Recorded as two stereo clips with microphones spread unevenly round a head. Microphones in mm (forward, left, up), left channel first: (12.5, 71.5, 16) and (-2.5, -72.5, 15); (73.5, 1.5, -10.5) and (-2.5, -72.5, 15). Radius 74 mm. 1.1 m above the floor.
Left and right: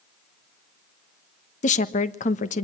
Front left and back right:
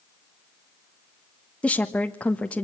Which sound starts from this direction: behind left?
A woman speaking, at 1.6 s.